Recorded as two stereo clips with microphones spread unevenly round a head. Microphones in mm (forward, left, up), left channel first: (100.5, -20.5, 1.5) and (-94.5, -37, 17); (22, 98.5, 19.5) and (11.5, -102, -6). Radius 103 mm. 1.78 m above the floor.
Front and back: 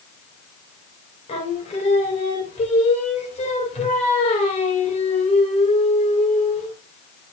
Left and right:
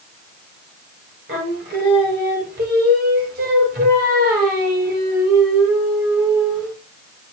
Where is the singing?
50° right, 2 m.